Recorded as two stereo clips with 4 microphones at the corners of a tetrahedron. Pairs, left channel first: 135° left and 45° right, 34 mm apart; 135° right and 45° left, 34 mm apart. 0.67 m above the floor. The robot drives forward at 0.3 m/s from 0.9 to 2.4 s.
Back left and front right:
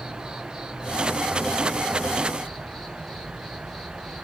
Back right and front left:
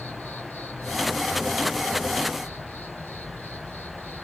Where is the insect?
120° right, 1.2 m; by 4.2 s 135° right, 1.5 m.